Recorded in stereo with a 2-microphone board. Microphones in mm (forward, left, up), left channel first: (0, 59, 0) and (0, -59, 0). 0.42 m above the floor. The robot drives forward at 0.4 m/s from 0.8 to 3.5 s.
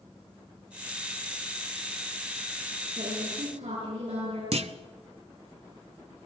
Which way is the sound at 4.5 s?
65° right (ahead or behind).